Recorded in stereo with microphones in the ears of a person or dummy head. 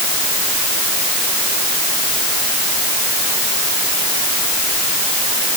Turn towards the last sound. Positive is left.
No sound to turn to.